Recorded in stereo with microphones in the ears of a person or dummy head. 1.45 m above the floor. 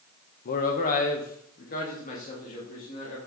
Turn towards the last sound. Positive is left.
turn(degrees=50)  # may be behind; listen again after turning